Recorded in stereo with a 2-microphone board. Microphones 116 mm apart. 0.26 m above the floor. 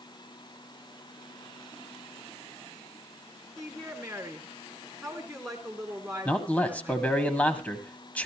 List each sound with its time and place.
3.6 s a woman speaking: centre (ahead or behind), 2.5 m
6.2 s a man speaking: 15° left (ahead or behind), 1.8 m